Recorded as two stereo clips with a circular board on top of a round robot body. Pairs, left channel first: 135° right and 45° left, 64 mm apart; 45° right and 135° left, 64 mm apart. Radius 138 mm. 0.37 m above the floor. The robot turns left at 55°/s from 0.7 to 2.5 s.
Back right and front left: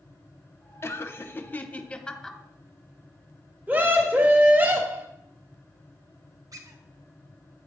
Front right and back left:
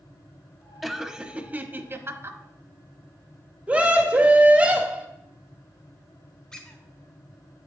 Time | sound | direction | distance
0.8 | laughter | 140° right | 1.1 m
3.7 | a scream | 80° left | 1.4 m
6.5 | a squeak | 35° left | 1.3 m